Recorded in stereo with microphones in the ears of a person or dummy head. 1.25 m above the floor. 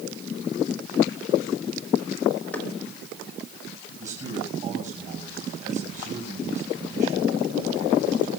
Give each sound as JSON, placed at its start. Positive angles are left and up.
{"t": 2.5, "sound": "knocking", "side_deg": 10, "distance_m": 3.5}
{"t": 4.0, "sound": "a man speaking", "side_deg": -40, "distance_m": 6.0}